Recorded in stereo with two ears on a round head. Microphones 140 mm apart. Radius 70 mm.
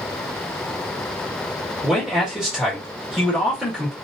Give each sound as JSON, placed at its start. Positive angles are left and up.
{"t": 1.8, "sound": "a man speaking", "side_deg": -5, "distance_m": 1.7}